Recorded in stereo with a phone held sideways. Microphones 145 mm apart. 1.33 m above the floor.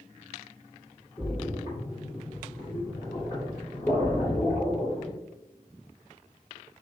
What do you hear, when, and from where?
1.2 s a splash: 30° left (ahead or behind), 1.9 m